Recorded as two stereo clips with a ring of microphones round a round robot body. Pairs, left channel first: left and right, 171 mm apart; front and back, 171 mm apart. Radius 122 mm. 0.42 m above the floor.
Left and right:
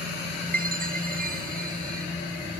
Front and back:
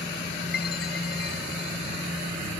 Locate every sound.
0.5 s a chime: 55° right